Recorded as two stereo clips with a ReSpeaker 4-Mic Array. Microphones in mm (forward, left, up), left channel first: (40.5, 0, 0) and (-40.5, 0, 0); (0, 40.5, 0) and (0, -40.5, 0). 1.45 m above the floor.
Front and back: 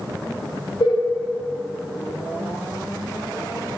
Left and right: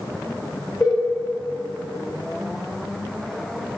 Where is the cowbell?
15° left, 3 m.